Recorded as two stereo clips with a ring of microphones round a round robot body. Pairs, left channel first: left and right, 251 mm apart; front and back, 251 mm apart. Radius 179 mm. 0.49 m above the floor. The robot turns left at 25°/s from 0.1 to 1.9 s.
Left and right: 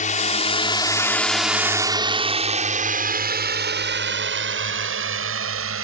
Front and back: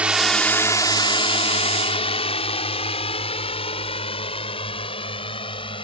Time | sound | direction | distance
0.0 | a drone | 100° left | ?